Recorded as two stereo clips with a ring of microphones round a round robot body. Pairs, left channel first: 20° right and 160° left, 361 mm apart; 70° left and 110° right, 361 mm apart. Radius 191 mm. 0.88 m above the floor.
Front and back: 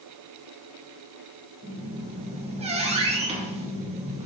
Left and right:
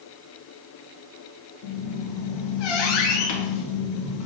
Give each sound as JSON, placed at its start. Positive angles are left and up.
{"t": 1.6, "sound": "a squeak", "azimuth_deg": 85, "distance_m": 1.1}